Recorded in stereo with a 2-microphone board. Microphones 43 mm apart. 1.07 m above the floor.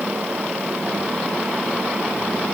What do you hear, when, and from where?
Only background noise.